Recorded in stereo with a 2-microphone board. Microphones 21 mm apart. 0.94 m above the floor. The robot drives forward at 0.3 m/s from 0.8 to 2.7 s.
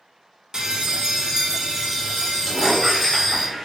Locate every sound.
0.5 s a bell: 30° right (ahead or behind), 0.5 m; by 3.5 s 15° right (ahead or behind), 1.1 m
2.5 s a squeak: 10° right (ahead or behind), 1.3 m